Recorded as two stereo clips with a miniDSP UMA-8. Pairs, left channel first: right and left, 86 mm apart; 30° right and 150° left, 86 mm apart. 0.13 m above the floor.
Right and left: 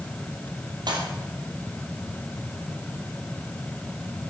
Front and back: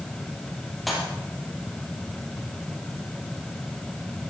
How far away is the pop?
About 3.5 m.